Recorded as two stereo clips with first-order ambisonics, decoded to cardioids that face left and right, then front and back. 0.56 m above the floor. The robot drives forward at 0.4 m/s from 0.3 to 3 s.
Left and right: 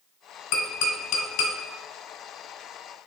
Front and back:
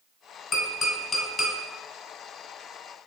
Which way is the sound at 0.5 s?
65° left.